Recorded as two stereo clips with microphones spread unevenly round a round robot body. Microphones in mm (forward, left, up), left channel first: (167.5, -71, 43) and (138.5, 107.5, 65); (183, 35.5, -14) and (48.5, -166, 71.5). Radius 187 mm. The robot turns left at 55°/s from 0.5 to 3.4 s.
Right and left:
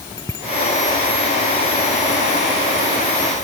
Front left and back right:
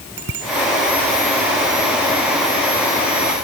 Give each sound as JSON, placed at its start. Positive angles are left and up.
{"t": 0.2, "sound": "a bicycle bell", "azimuth_deg": -165}